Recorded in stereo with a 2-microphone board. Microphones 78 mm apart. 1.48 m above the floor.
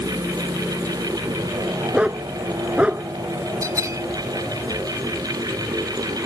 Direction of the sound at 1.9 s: 15° right (ahead or behind).